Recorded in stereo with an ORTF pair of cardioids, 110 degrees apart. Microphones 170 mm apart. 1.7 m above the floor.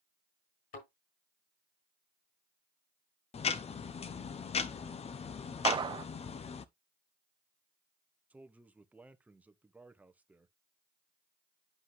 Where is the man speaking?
10° right, 1.0 m.